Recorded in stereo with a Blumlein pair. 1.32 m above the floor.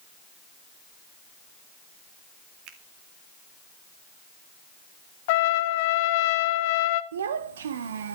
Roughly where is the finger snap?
Ahead right.